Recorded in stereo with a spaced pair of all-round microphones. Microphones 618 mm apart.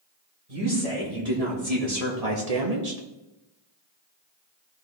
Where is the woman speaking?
65° right (ahead or behind), 4.5 m; by 3.0 s 75° right (ahead or behind), 1.5 m.